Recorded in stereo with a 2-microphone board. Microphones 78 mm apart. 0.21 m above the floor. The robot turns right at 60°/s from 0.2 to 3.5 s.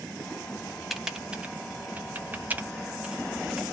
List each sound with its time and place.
0.9 s typing on a keyboard: centre (ahead or behind), 0.6 m; by 3.6 s 5° right (ahead or behind), 0.6 m